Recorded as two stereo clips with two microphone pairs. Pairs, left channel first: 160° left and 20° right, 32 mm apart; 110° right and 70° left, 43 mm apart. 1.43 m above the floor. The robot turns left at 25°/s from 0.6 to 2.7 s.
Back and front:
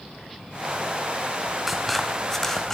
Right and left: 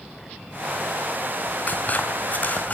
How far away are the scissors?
About 1.6 m.